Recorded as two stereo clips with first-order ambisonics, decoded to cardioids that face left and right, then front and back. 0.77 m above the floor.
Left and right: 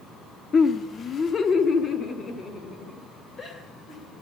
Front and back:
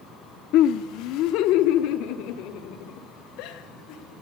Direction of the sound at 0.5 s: 25° left.